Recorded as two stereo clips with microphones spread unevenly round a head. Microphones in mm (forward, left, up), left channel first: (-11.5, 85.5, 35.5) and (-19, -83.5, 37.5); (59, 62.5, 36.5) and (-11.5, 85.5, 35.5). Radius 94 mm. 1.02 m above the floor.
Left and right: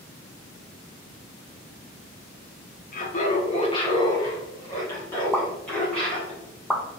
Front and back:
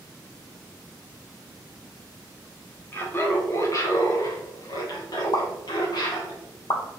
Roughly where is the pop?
Ahead.